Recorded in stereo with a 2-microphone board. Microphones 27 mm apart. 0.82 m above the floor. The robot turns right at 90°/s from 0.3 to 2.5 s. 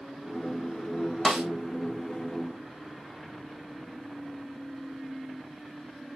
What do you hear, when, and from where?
1.2 s a snare drum: 30° right (ahead or behind), 2.5 m; by 1.5 s 50° right (ahead or behind), 2.5 m